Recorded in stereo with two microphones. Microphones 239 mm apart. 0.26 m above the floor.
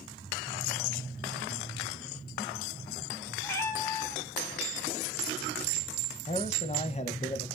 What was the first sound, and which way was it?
A cat meowing, 10° left (ahead or behind).